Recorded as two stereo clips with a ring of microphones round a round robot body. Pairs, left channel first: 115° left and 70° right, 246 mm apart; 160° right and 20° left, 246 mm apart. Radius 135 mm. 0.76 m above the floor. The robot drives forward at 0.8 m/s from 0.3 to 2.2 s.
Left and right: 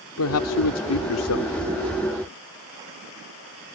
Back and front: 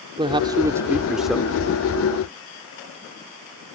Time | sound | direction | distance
0.2 | a man speaking | 90° left | ?